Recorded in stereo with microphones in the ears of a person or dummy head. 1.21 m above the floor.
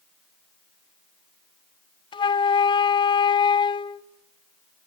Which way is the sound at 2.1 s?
20° left (ahead or behind).